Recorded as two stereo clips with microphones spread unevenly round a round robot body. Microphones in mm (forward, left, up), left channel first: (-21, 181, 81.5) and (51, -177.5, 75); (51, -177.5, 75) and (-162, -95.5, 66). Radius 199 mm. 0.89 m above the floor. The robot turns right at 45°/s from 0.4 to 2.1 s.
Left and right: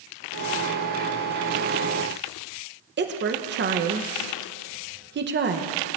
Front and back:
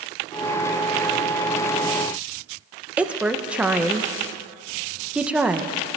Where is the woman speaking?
120° right, 0.7 m.